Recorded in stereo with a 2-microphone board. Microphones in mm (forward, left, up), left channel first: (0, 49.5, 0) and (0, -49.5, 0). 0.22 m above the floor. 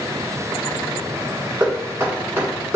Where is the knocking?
25° right (ahead or behind), 1.7 m.